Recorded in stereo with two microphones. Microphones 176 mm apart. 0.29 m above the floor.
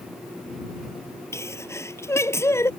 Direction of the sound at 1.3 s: 15° left (ahead or behind).